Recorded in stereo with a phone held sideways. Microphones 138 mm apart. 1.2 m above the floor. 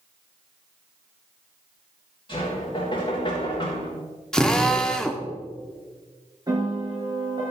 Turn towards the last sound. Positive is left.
turn(degrees=-30)  # may be behind; listen again after turning